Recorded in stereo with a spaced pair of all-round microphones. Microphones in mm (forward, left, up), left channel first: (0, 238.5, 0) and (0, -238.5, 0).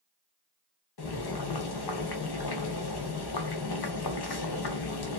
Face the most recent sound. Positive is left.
turn(degrees=55)  # may be behind; listen again after turning